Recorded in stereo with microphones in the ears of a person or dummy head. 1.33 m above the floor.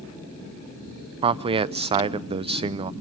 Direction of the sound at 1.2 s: 25° right (ahead or behind).